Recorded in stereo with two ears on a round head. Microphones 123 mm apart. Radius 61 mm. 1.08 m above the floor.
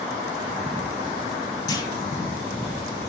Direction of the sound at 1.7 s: 30° left (ahead or behind).